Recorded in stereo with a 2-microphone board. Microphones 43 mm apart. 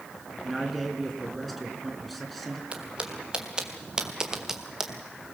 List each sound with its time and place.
0.4 s a man speaking: centre (ahead or behind), 3.5 m
2.7 s footsteps: 25° right (ahead or behind), 3 m; by 4.9 s 5° right (ahead or behind), 2 m